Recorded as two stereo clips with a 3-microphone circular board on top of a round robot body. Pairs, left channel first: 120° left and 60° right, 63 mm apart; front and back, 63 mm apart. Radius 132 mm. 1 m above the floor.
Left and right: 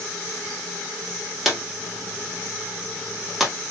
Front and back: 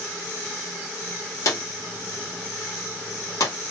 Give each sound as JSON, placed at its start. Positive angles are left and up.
{"t": 1.4, "sound": "a drawer", "azimuth_deg": 25, "distance_m": 1.3}